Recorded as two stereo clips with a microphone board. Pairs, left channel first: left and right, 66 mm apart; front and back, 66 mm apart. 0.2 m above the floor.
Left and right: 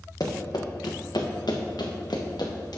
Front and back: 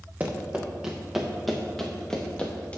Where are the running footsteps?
110° left, 1.8 m; by 2.8 s 70° left, 2 m.